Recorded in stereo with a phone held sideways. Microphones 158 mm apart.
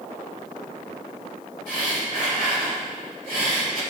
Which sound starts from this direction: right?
Breathing, at 1.7 s.